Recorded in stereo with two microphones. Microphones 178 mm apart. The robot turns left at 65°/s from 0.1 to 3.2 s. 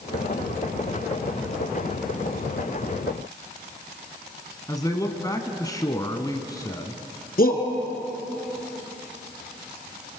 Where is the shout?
55° left (ahead or behind), 2.5 m.